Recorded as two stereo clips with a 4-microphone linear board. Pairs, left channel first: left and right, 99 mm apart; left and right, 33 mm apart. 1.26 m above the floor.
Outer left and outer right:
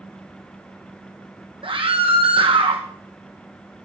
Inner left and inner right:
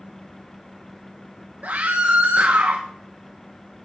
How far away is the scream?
About 1.3 m.